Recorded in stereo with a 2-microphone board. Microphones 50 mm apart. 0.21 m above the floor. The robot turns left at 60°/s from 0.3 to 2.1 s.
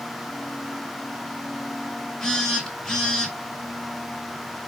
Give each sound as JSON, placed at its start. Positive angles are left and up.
{"t": 2.2, "sound": "a phone buzzing", "side_deg": 10, "distance_m": 1.4}